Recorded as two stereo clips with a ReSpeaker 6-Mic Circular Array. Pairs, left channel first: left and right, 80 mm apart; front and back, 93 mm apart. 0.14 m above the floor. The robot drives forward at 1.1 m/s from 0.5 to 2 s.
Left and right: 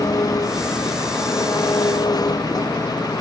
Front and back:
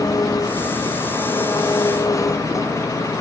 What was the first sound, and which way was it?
An engine running, 50° left.